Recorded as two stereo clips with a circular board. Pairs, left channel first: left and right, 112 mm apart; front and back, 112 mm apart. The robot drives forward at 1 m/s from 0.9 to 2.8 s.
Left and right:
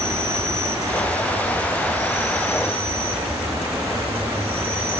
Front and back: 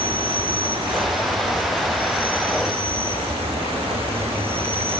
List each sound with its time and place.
0.0 s an insect: 150° right, 4 m; by 5.0 s 160° right, 5.5 m